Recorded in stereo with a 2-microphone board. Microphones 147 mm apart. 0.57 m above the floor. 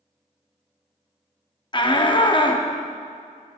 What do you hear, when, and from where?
1.7 s a shout: 30° left (ahead or behind), 0.7 m